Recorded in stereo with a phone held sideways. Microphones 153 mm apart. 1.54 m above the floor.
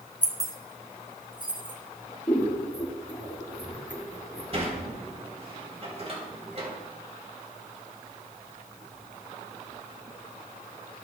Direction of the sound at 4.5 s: 45° right (ahead or behind).